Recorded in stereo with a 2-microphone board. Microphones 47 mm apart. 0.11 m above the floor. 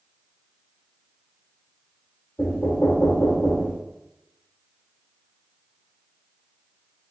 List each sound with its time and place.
2.4 s knocking: 45° left (ahead or behind), 1.9 m